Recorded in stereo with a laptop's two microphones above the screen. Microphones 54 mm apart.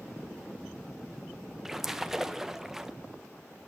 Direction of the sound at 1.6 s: 5° right (ahead or behind).